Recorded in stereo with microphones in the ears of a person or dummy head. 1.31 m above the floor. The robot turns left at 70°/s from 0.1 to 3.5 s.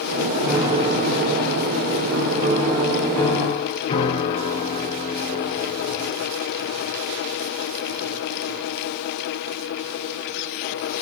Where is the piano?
5° right, 3 m; by 6.2 s 140° left, 3 m.